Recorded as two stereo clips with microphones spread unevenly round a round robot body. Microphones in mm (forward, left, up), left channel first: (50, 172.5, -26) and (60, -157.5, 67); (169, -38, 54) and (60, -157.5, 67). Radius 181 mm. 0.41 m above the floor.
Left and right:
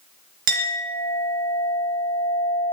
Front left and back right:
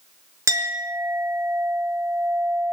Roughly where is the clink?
Ahead right.